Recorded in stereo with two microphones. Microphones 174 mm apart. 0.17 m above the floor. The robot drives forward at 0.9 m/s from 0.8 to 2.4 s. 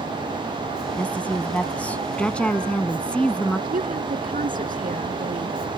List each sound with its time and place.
1.0 s a woman speaking: 10° left (ahead or behind); by 3.6 s 5° left (ahead or behind)
3.7 s a woman speaking: 55° right (ahead or behind)